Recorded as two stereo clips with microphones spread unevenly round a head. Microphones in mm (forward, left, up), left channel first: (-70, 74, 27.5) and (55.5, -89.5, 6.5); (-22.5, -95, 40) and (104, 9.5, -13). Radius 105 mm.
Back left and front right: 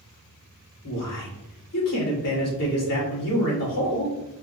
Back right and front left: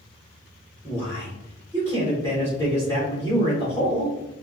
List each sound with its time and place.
0.8 s a man speaking: 145° left, 2 m